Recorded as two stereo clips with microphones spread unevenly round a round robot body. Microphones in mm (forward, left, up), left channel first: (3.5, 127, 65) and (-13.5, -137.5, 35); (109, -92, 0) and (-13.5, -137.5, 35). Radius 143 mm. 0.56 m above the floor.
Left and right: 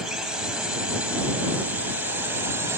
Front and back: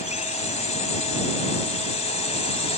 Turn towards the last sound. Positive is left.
turn(degrees=-15)